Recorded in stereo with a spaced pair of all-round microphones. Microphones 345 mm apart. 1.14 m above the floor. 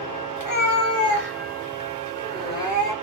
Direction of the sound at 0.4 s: 55° left (ahead or behind).